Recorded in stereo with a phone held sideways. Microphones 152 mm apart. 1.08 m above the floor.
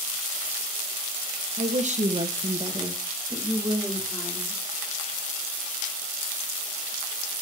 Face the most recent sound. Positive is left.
turn(degrees=0)  # may be behind; listen again after turning